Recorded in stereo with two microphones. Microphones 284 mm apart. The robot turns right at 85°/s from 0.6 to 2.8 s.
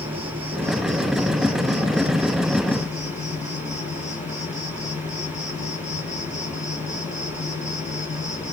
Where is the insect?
160° right, 0.8 m; by 8.5 s 25° left, 0.8 m.